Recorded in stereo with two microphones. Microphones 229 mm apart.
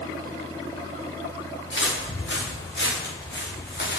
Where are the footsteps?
55° left (ahead or behind), 6.5 m; by 4.0 s 45° left (ahead or behind), 3.5 m.